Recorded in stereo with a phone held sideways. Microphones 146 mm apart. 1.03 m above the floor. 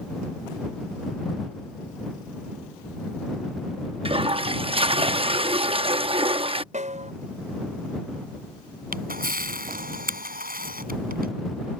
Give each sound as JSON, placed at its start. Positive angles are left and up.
{"t": 4.0, "sound": "a toilet flushing", "side_deg": -40}
{"t": 6.7, "sound": "a snare drum", "side_deg": -55}
{"t": 8.9, "sound": "a camera shutter", "side_deg": -75}